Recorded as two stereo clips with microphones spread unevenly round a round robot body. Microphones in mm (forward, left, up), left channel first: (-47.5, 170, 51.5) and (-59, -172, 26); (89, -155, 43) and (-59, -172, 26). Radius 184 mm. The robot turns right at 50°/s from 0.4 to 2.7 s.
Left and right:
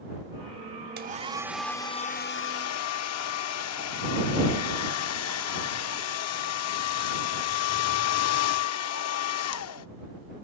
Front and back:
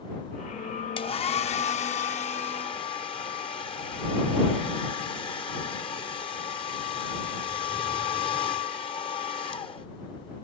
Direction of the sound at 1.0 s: 30° right.